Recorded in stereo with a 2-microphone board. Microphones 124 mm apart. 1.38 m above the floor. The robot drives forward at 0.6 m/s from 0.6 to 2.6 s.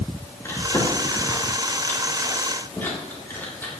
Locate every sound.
0.4 s chewing: 20° left (ahead or behind), 2.5 m; by 3.7 s 15° left (ahead or behind), 3.5 m